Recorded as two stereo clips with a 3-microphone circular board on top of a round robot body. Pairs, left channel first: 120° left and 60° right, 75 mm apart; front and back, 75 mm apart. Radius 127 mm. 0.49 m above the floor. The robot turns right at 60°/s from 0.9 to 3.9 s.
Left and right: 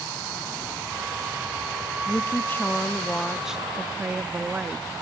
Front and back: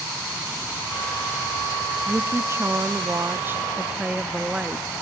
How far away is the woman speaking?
About 0.7 m.